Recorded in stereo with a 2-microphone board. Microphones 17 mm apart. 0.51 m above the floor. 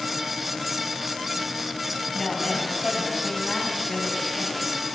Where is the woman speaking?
20° left (ahead or behind), 2.5 m; by 4.9 s 55° left (ahead or behind), 4 m.